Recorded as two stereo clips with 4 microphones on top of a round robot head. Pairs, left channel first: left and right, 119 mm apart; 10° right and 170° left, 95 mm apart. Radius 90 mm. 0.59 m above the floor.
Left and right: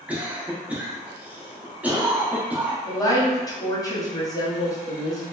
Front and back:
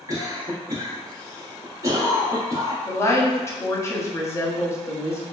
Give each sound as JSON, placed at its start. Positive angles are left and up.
{"t": 0.1, "sound": "a cough", "azimuth_deg": -160, "distance_m": 1.0}
{"t": 2.9, "sound": "a woman speaking", "azimuth_deg": 40, "distance_m": 0.8}